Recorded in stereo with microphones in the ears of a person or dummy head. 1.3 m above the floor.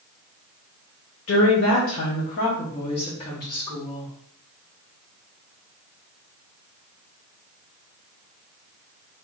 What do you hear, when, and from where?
1.3 s a woman speaking: 65° left (ahead or behind), 1.0 m; by 4.1 s 20° left (ahead or behind), 1.9 m